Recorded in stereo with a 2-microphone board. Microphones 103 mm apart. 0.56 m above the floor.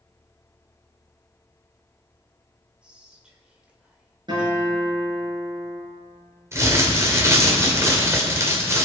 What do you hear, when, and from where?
2.8 s whispering: 10° right (ahead or behind), 2 m
4.3 s a guitar: 45° right (ahead or behind), 5 m
6.5 s crumpling: 30° right (ahead or behind), 2 m